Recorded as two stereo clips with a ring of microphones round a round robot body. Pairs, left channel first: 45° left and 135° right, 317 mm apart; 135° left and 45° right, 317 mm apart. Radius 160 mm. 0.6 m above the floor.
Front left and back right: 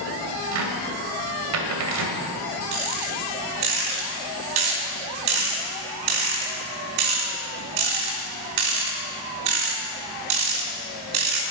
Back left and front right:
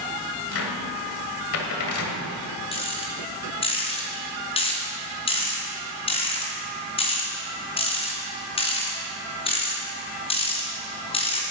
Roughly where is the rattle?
Behind right.